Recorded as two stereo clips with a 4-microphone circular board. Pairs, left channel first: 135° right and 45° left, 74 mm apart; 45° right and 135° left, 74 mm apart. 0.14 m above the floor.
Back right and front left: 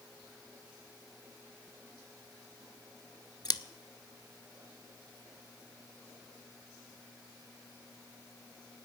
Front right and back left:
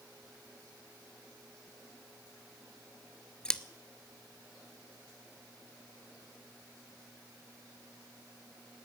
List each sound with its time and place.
3.5 s scissors: 125° right, 0.5 m